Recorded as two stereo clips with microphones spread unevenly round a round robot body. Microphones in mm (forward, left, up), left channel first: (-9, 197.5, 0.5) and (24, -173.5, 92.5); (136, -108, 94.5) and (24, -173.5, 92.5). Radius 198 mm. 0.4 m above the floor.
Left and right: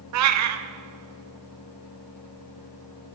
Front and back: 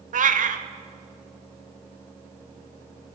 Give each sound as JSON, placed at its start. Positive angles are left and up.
{"t": 0.1, "sound": "a cat meowing", "azimuth_deg": -140, "distance_m": 1.0}